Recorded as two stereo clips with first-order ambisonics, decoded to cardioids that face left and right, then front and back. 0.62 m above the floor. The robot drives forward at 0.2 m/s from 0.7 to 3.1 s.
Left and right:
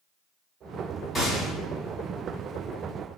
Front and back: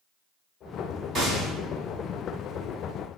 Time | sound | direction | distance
1.1 | a gunshot | 150° left | 1.2 m